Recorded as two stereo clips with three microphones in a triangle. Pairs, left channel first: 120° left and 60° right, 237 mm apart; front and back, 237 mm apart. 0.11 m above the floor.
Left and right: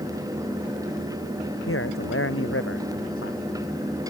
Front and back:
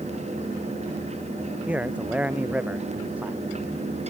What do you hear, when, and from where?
1.7 s a man speaking: 95° left